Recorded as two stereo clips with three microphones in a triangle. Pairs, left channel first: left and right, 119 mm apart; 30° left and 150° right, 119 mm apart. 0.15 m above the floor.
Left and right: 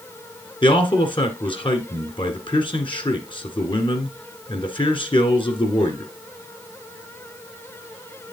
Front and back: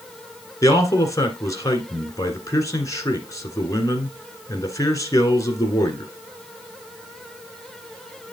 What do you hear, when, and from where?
0.6 s a man speaking: 80° left, 1.7 m